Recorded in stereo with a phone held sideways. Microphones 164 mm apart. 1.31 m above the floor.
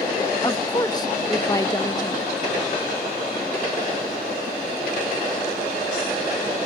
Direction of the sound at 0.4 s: 25° left (ahead or behind).